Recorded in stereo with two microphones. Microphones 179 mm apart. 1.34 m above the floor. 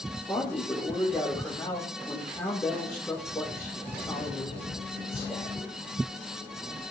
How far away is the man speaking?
About 4.5 m.